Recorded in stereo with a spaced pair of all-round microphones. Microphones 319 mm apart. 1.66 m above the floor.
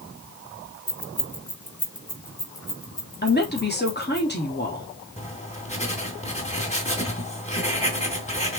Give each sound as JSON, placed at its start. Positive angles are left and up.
{"t": 0.9, "sound": "keys jangling", "side_deg": 40, "distance_m": 1.1}
{"t": 3.2, "sound": "a woman speaking", "side_deg": 30, "distance_m": 3.5}
{"t": 5.2, "sound": "writing", "side_deg": 20, "distance_m": 2.5}